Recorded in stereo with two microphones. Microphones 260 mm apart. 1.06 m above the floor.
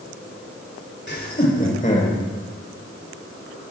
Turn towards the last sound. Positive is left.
turn(degrees=30)  # may be behind; listen again after turning